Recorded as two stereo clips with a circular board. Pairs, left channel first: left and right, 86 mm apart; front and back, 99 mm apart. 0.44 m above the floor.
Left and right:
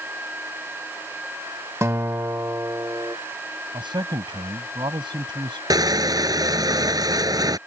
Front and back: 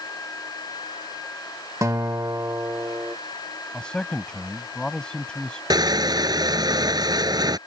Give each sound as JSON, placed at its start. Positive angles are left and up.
{"t": 1.8, "sound": "a guitar", "azimuth_deg": -135}
{"t": 3.7, "sound": "a man speaking", "azimuth_deg": -80}
{"t": 5.7, "sound": "crushing", "azimuth_deg": -135}